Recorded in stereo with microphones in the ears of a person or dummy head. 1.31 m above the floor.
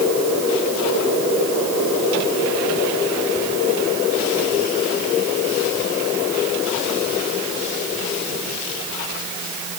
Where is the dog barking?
No dog barking in this recording.